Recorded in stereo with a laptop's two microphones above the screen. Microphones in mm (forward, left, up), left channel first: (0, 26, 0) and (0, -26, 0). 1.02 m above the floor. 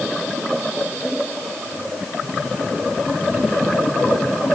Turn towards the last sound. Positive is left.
No sound to turn to.